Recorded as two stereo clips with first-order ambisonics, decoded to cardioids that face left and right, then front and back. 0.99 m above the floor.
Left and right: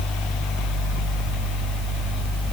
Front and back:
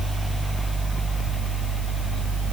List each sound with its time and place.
Only background noise.